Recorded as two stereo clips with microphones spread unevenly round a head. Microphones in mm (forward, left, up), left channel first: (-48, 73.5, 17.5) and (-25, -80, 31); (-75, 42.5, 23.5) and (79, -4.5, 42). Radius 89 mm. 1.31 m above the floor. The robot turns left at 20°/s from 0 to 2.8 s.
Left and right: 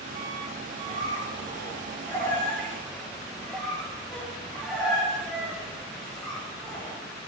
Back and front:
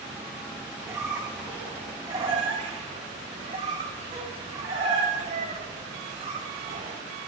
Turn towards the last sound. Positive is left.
turn(degrees=0)